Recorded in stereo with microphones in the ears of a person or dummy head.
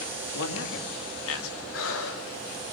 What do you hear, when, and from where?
0.3 s a man speaking: 75° left (ahead or behind), 4.5 m; by 1.6 s 80° left, 3.5 m
1.7 s breathing: 65° left (ahead or behind), 4.5 m